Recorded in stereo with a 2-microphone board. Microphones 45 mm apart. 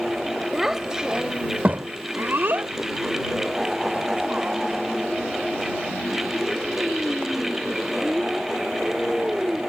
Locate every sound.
0.5 s a child speaking: 5° right (ahead or behind); by 9.6 s 25° right (ahead or behind)